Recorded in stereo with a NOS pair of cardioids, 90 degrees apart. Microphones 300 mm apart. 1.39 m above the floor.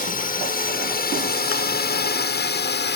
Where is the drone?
30° left; by 3.0 s 35° left.